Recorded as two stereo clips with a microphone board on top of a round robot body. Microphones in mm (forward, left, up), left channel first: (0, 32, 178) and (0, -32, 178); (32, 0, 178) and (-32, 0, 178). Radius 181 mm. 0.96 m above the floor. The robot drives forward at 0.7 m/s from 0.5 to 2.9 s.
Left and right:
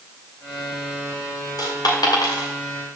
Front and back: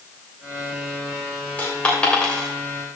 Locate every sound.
1.6 s a dropped coin: 70° left, 2.5 m; by 2.5 s 85° left, 2.5 m